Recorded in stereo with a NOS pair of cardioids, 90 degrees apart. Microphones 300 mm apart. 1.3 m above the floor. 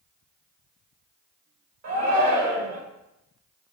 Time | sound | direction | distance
1.8 | a shout | 60° right | 2 m